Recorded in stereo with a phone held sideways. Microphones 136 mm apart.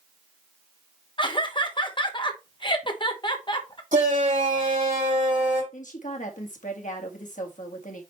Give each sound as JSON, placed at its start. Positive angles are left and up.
{"t": 1.2, "sound": "laughter", "side_deg": 35, "distance_m": 1.0}
{"t": 3.9, "sound": "a shout", "side_deg": -70, "distance_m": 4.5}
{"t": 5.7, "sound": "a woman speaking", "side_deg": 70, "distance_m": 1.7}